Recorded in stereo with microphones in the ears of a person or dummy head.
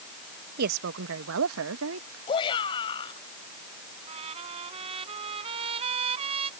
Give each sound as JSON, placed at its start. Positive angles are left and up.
{"t": 0.6, "sound": "a woman speaking", "side_deg": -50}
{"t": 2.3, "sound": "a shout", "side_deg": 25}
{"t": 4.1, "sound": "a trumpet", "side_deg": -35}